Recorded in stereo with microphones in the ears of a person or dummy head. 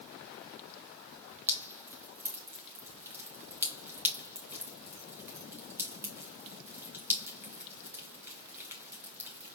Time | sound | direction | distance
1.5 | dripping | 15° right (ahead or behind) | 0.9 m